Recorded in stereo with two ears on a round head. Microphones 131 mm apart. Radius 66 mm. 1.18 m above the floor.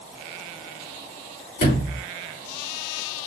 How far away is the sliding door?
About 3 m.